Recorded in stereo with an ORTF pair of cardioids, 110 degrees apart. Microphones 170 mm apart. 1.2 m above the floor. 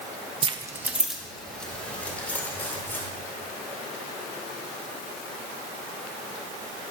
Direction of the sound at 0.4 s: 35° right.